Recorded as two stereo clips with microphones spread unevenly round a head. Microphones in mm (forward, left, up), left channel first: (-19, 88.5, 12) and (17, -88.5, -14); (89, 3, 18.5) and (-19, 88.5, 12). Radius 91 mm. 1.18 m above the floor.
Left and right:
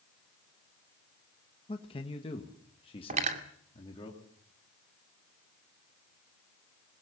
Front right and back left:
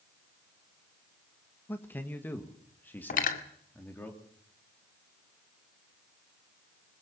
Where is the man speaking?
35° left, 1.5 m; by 4.1 s 40° left, 3 m.